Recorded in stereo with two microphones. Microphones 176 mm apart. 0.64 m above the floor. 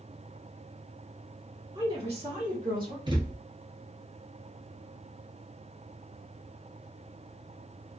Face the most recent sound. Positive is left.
turn(degrees=-30)  # may be behind; listen again after turning